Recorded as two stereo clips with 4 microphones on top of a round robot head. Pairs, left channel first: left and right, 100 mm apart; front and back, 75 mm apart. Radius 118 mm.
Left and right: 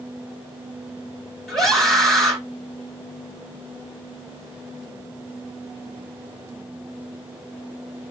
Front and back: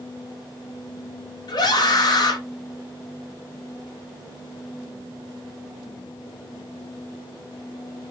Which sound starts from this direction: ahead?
A scream, at 1.5 s.